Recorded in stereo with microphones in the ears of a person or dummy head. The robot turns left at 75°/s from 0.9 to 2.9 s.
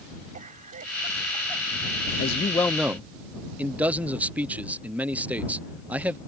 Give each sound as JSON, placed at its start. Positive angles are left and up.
{"t": 0.3, "sound": "a cough", "azimuth_deg": -135}
{"t": 2.2, "sound": "a man speaking", "azimuth_deg": 50}